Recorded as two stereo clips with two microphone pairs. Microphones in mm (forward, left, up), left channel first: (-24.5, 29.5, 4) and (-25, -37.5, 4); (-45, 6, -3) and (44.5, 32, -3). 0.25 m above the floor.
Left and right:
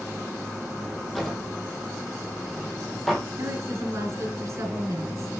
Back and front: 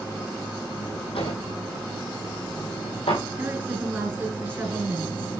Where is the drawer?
Straight behind, 3 m.